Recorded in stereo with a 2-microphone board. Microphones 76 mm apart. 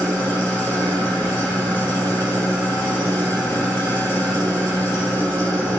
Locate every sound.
0.0 s an engine running: 20° left (ahead or behind), 1.8 m